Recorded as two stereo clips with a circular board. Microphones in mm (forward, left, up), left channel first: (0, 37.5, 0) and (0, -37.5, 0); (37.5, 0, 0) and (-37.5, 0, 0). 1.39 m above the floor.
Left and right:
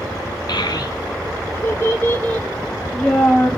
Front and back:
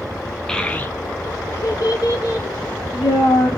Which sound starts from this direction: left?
A child speaking, at 0.5 s.